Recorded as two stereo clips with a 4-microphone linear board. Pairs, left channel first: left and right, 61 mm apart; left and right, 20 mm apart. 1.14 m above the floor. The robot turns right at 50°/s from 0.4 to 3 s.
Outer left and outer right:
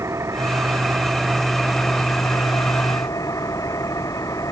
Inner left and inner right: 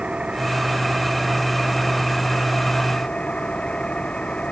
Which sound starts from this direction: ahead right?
An engine running, at 0.0 s.